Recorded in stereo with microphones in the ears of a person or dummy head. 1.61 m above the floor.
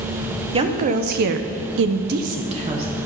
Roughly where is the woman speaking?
Right.